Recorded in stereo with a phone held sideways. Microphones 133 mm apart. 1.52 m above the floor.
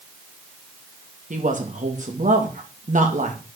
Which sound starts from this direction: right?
A woman speaking, at 1.3 s.